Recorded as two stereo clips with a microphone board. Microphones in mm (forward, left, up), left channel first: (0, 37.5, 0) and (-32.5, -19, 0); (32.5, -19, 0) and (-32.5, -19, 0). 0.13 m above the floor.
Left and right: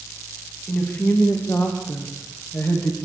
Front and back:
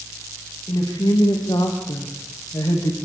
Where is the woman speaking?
5° right, 9.5 m; by 3.0 s 10° left, 7 m.